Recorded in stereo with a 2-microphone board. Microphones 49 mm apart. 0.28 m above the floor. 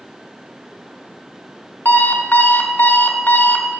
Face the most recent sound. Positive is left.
turn(degrees=50)  # may be behind; listen again after turning